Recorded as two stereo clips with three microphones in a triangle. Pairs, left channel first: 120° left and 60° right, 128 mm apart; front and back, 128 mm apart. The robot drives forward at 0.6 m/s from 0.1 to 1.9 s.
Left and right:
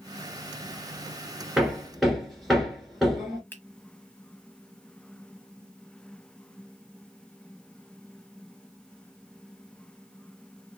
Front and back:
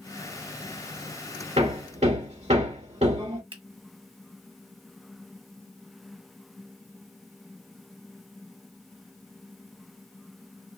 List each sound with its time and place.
1.6 s hammering: 145° right, 1.7 m; by 3.4 s 150° right, 1.8 m
3.5 s a finger snap: 170° right, 1.2 m